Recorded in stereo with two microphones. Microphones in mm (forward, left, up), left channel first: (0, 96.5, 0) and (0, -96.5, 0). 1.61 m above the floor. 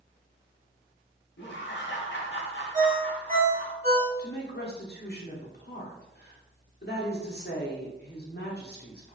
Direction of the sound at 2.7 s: 40° right (ahead or behind).